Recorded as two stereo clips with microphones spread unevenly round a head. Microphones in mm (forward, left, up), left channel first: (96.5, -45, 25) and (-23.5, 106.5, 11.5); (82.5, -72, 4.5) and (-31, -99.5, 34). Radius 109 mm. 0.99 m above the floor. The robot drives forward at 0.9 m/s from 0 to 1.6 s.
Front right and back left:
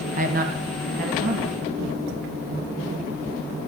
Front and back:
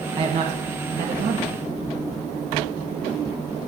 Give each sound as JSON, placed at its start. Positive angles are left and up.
{"t": 0.2, "sound": "a man speaking", "azimuth_deg": 145, "distance_m": 0.9}